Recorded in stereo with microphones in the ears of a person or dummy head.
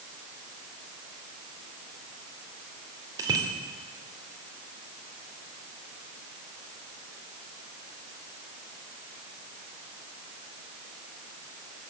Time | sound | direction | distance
3.2 | a bicycle bell | 15° right (ahead or behind) | 2.5 m